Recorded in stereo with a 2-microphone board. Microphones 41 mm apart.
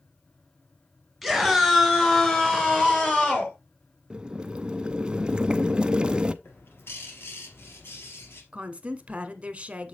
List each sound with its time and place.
1.2 s a scream: 5° left (ahead or behind), 2 m; by 3.5 s 35° left (ahead or behind), 3.5 m
4.1 s boiling: 20° right (ahead or behind), 0.5 m
6.4 s a bird: 65° left (ahead or behind), 2.5 m
8.5 s a woman speaking: 30° right (ahead or behind), 1.2 m